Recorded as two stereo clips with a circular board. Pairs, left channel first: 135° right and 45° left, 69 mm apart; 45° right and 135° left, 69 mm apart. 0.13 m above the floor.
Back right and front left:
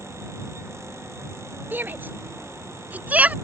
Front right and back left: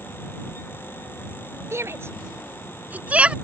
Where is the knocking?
No knocking in this recording.